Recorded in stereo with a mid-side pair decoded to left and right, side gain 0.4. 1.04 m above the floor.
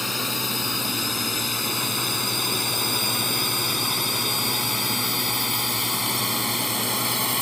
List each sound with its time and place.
0.0 s a drone: 25° left; by 7.4 s 10° left